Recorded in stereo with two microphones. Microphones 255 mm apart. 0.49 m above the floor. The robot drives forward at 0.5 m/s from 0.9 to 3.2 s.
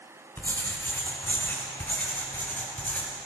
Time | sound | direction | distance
0.4 | writing | 10° left (ahead or behind) | 3 m